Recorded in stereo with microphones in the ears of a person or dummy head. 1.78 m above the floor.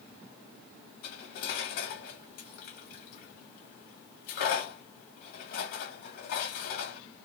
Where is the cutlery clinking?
40° left (ahead or behind), 1.2 m.